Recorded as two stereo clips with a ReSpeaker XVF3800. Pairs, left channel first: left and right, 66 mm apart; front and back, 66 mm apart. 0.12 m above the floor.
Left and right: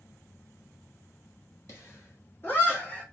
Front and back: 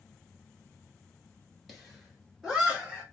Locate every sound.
1.7 s laughter: 90° left, 2.0 m; by 3.0 s 130° left, 1.5 m